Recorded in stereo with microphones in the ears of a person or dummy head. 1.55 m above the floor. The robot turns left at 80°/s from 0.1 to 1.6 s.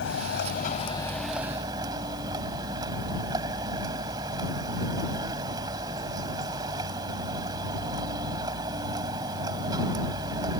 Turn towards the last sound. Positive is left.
turn(degrees=-25)